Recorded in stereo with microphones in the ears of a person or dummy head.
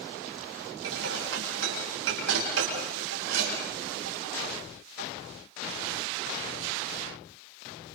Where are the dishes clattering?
80° right, 7 m.